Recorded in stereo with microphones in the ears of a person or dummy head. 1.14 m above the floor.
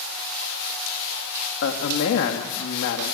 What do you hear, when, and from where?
1.6 s a man speaking: 80° left, 1.4 m